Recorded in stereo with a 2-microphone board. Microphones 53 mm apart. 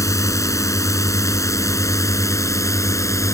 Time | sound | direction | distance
0.0 | a drone | 75° left (ahead or behind) | ?